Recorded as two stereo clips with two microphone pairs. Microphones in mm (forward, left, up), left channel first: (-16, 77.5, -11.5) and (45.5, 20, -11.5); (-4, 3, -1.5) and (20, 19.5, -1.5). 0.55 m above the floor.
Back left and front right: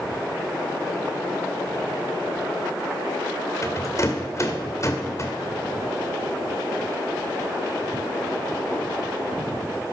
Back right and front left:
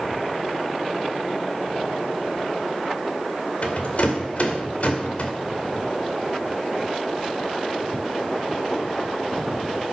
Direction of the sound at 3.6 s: 175° right.